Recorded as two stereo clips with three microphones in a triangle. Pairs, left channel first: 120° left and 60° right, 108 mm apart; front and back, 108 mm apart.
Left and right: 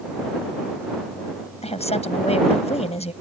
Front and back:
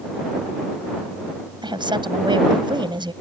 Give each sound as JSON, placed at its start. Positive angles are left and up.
{"t": 1.6, "sound": "a woman speaking", "azimuth_deg": 135}